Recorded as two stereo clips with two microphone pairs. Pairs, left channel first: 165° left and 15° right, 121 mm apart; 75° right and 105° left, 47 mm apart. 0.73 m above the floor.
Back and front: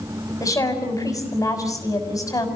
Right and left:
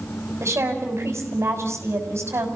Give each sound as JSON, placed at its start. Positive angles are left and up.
{"t": 0.4, "sound": "a woman speaking", "azimuth_deg": 105, "distance_m": 6.0}